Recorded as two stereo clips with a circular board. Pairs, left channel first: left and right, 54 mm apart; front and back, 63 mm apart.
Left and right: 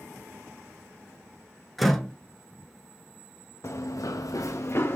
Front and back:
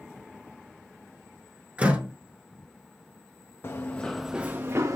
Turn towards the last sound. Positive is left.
turn(degrees=140)